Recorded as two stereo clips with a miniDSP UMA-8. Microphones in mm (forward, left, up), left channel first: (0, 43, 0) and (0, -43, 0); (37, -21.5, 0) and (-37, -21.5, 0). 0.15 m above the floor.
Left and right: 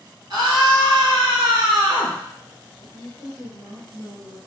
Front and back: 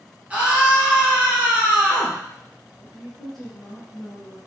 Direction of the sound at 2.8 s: 80° right.